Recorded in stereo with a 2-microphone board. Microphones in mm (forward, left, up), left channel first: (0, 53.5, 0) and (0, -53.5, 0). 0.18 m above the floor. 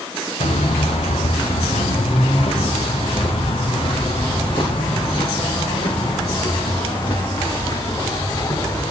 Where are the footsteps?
85° left, 3.5 m; by 8.9 s 40° left (ahead or behind), 7.5 m.